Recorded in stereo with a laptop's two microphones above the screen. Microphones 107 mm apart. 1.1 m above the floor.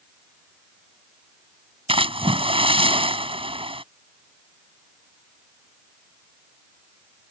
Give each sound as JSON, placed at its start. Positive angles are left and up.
{"t": 1.9, "sound": "a splash", "side_deg": -60}